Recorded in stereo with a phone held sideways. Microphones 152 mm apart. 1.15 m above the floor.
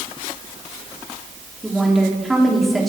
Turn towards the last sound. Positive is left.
turn(degrees=0)  # may be behind; listen again after turning